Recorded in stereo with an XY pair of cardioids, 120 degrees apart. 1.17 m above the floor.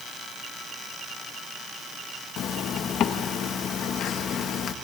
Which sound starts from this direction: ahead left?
A zipper, at 2.4 s.